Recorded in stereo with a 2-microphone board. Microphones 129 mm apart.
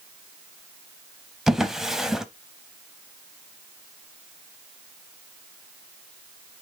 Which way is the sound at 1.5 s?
5° right (ahead or behind).